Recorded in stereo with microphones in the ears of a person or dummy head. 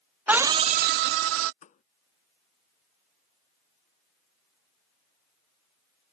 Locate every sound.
0.3 s a scream: 5° right (ahead or behind); by 1.5 s 70° right (ahead or behind)
1.6 s a thud: 35° left (ahead or behind)